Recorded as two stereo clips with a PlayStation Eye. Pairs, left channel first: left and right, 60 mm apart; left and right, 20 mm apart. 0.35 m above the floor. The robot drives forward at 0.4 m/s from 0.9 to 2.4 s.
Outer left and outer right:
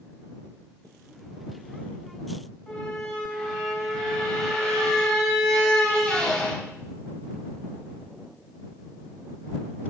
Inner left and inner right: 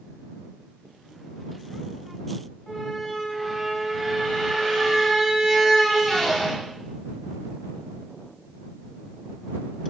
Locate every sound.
2.7 s a squeak: 10° left (ahead or behind), 2.5 m